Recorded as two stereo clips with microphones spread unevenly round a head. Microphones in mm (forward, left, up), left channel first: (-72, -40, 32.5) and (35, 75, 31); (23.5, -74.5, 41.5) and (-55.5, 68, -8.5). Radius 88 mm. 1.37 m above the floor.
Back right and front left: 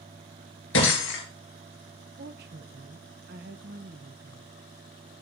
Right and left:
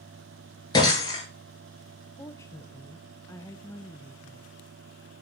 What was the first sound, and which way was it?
Breaking glass, 120° right.